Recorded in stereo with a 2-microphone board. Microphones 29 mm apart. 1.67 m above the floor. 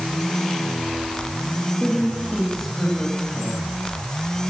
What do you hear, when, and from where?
1.8 s a woman speaking: 10° left (ahead or behind), 4 m